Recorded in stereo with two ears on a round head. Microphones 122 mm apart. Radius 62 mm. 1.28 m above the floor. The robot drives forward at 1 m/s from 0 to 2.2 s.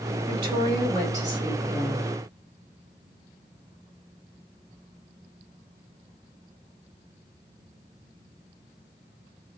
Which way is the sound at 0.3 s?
40° right (ahead or behind).